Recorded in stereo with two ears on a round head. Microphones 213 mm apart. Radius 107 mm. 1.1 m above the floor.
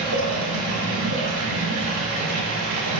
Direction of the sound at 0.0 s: 85° right.